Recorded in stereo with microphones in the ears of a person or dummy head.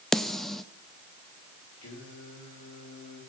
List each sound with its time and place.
0.1 s a snare drum: 5° left (ahead or behind), 0.6 m
1.8 s singing: 80° left, 7 m